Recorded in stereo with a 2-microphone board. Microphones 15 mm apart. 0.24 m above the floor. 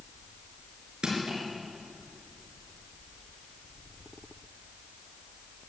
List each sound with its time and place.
1.0 s crushing: 70° right (ahead or behind), 4.5 m